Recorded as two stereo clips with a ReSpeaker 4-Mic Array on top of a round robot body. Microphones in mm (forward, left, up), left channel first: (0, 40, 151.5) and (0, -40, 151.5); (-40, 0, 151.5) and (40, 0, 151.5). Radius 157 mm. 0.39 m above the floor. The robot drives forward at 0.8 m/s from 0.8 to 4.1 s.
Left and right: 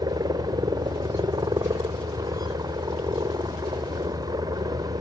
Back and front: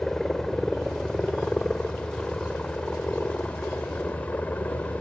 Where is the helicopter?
100° right; by 5.0 s 110° right.